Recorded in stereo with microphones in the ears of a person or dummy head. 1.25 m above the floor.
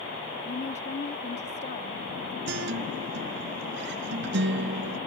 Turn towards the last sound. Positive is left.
turn(degrees=-65)  # may be behind; listen again after turning